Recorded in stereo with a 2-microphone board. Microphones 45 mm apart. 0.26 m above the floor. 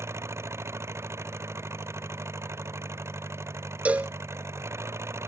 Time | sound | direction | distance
0.0 | an engine running | 85° right | ?
3.9 | a cowbell | 35° right (ahead or behind) | ?